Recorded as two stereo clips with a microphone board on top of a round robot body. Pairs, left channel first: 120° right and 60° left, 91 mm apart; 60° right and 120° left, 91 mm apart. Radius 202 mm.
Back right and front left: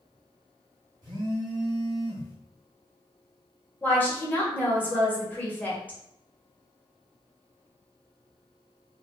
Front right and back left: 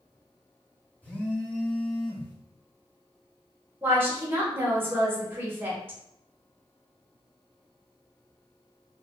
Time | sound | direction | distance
1.0 | a phone buzzing | 15° left | 1.0 m
3.8 | a woman speaking | 175° left | 1.4 m